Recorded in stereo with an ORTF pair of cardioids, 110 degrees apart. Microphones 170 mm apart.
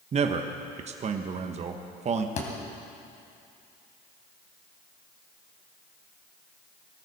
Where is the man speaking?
40° right, 1.1 m.